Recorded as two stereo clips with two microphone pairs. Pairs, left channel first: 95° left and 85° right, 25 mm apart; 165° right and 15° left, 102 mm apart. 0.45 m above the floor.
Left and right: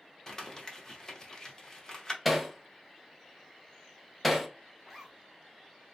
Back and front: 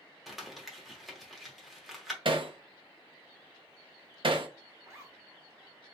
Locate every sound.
0.3 s crumpling: 100° left, 0.9 m
2.2 s hammering: 10° left, 0.6 m
4.8 s a zipper: 15° left, 1.2 m